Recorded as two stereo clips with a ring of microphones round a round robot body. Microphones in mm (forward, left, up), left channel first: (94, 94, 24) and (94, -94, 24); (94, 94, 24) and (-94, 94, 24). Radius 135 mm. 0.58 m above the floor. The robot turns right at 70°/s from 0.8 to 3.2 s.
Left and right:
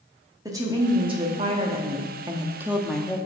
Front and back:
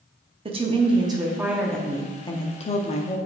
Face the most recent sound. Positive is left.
turn(degrees=20)